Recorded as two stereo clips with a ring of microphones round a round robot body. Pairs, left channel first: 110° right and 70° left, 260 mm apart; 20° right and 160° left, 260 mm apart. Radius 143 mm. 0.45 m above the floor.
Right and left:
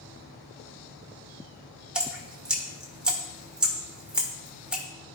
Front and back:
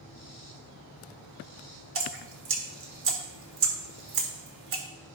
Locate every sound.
1.9 s dripping: 155° left, 1.6 m